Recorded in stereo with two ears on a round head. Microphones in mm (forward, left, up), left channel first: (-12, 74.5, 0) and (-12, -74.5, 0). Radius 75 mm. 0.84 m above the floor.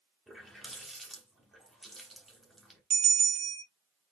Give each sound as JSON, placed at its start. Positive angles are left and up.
{"t": 0.3, "sound": "a running tap", "side_deg": 0, "distance_m": 1.3}
{"t": 2.9, "sound": "a bell", "side_deg": -35, "distance_m": 1.4}